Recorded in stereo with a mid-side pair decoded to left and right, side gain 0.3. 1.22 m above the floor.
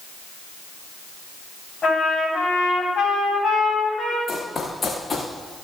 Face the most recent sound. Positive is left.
turn(degrees=45)